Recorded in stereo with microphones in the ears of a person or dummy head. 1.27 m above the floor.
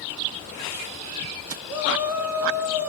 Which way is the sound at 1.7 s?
10° right (ahead or behind).